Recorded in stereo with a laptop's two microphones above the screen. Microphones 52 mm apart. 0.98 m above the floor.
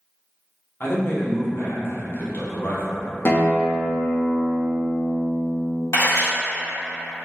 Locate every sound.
0.8 s a man speaking: 45° left (ahead or behind), 0.8 m
3.2 s a guitar: 50° left (ahead or behind), 0.6 m
5.9 s a camera shutter: 90° left, 1.7 m